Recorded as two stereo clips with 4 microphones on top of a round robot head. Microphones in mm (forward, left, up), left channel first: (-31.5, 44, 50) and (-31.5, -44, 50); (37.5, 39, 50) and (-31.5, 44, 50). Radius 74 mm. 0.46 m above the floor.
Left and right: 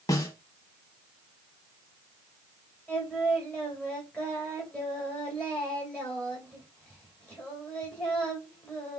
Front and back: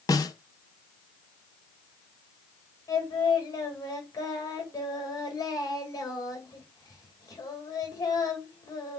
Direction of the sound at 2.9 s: 15° left.